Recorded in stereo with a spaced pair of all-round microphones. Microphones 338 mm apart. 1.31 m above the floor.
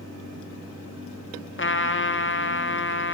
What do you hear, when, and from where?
1.6 s a trumpet: 35° left (ahead or behind), 0.6 m